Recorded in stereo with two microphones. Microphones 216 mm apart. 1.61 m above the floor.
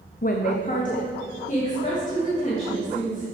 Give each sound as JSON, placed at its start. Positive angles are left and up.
{"t": 0.2, "sound": "a woman speaking", "side_deg": 45, "distance_m": 0.5}